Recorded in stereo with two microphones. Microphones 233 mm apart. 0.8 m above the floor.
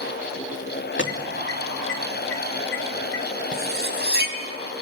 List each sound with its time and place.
1.0 s an alarm: 55° left (ahead or behind), 2.5 m
3.5 s cutlery clinking: 45° right (ahead or behind), 3 m